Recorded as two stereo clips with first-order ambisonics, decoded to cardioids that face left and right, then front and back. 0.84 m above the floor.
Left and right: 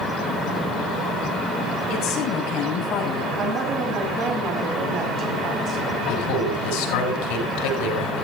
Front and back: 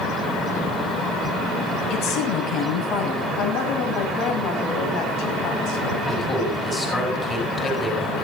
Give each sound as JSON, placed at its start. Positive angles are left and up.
{"t": 1.9, "sound": "a woman speaking", "azimuth_deg": 40, "distance_m": 6.5}
{"t": 3.4, "sound": "a woman speaking", "azimuth_deg": -35, "distance_m": 5.5}
{"t": 6.1, "sound": "a man speaking", "azimuth_deg": 75, "distance_m": 7.5}